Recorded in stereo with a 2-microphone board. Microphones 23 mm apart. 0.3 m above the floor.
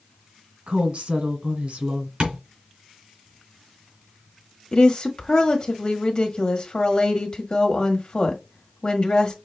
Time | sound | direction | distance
0.7 | a woman speaking | 60° right (ahead or behind) | 1.8 m
2.2 | tapping | 50° right (ahead or behind) | 3 m
4.7 | a woman speaking | 40° left (ahead or behind) | 1.3 m